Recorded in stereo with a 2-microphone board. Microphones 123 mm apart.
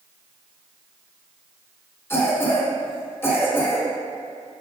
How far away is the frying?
No frying in this recording.